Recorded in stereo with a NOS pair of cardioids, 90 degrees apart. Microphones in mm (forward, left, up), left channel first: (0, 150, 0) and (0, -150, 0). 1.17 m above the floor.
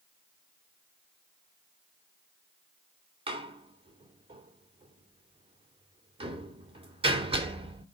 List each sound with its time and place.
3.3 s a door slam: 20° right, 2.5 m